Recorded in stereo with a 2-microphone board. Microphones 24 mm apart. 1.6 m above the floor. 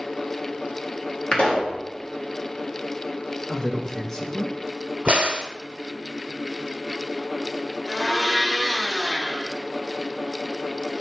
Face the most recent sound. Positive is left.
turn(degrees=-5)  # may be behind; listen again after turning